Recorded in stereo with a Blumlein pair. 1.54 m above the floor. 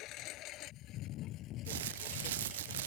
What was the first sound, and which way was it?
A lawn mower, 35° left.